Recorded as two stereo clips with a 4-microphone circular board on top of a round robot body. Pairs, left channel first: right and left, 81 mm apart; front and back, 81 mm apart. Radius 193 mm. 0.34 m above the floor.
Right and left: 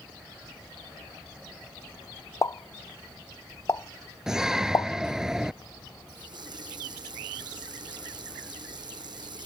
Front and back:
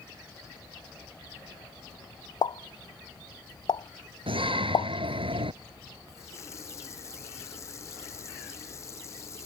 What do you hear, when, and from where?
2.4 s a pop: 35° right
4.3 s a shout: 175° left
6.1 s a running tap: 55° left